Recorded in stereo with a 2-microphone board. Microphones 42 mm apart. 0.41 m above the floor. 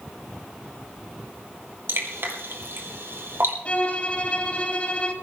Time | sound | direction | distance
1.9 | dripping | 70° right (ahead or behind) | 2.5 m
3.6 | a violin | 35° left (ahead or behind) | 2.5 m